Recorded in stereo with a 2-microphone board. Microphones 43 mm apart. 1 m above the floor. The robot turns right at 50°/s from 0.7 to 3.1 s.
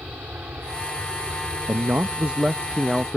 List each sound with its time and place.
0.0 s an aircraft: 125° right; by 3.2 s 5° right
1.7 s a man speaking: 65° right; by 3.2 s 5° left